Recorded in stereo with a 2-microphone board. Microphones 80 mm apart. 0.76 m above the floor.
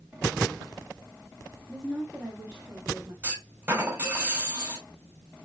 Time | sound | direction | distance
1.7 | a woman speaking | 5° left (ahead or behind) | 1.4 m
3.2 | a clunk | 30° right (ahead or behind) | 2.5 m